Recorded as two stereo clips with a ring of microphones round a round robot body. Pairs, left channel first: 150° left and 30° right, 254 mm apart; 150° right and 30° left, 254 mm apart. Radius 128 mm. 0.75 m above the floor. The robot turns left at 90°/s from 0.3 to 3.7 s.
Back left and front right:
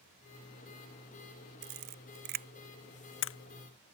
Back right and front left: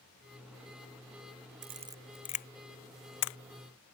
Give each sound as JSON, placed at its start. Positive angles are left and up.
{"t": 1.6, "sound": "a camera shutter", "azimuth_deg": -20}